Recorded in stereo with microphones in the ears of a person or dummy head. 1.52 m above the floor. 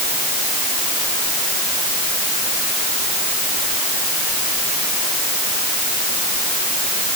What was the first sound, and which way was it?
Only background noise.